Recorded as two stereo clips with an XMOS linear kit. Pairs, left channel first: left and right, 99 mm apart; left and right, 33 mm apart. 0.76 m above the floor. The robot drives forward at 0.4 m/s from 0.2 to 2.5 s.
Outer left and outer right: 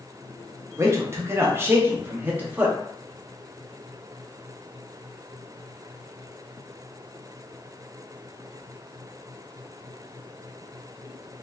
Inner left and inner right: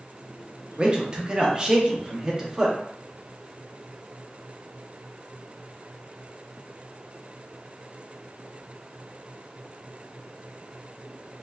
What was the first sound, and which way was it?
A man speaking, 30° right (ahead or behind).